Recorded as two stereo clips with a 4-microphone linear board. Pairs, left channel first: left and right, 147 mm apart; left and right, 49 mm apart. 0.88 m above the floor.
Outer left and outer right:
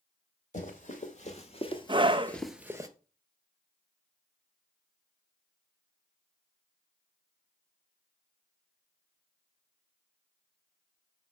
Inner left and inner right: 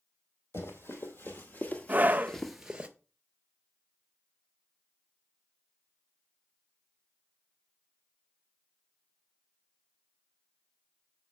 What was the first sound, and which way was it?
Running footsteps, 55° left (ahead or behind).